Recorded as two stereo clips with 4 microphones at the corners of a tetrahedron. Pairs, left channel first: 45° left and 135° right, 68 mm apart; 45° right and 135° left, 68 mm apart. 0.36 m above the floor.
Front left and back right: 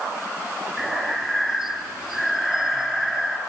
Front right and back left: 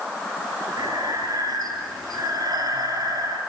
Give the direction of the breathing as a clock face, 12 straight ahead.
7 o'clock.